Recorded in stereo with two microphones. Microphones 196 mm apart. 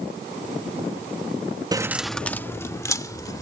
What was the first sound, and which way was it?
Keys jangling, 20° right (ahead or behind).